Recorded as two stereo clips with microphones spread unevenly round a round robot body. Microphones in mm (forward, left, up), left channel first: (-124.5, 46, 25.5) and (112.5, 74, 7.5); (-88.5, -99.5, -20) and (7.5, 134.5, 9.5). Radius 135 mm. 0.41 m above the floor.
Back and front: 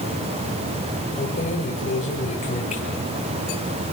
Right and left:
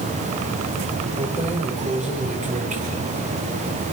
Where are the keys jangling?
130° left, 7.5 m.